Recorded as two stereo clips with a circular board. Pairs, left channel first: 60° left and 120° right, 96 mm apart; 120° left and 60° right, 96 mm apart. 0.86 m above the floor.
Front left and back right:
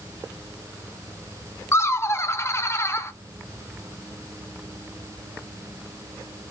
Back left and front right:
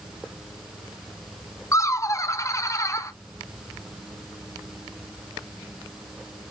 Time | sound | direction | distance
1.7 | laughter | 95° left | 0.6 m